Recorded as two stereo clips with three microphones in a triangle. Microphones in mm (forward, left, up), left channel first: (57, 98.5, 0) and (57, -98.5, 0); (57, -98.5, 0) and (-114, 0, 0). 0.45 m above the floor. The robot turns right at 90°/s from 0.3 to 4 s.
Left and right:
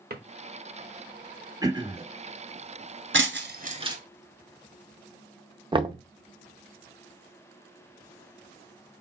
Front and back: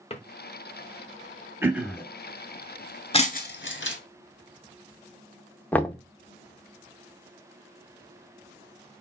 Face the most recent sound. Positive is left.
turn(degrees=-100)